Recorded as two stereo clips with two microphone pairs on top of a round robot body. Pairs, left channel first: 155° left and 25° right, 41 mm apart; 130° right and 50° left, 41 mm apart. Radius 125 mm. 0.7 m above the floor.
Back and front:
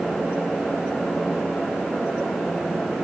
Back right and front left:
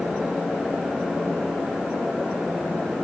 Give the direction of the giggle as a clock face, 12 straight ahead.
I don't hear a giggle.